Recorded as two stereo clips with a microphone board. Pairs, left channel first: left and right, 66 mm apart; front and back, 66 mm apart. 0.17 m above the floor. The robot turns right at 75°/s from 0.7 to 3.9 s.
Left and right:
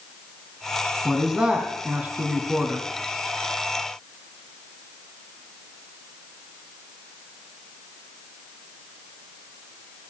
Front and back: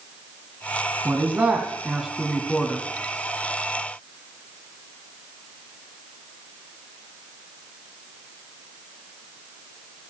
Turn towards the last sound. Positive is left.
turn(degrees=40)